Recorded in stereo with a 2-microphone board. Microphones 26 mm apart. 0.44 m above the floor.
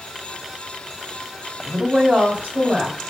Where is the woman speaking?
65° right (ahead or behind), 3 m.